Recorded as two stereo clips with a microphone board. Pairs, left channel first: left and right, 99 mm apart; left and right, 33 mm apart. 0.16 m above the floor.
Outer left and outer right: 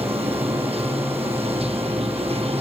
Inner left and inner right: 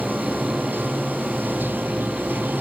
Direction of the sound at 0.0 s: 80° right.